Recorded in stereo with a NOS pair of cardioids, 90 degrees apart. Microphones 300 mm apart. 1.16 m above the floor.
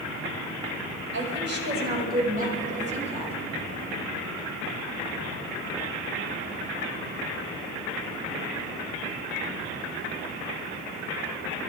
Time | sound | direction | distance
1.1 | a woman speaking | 40° right | 5 m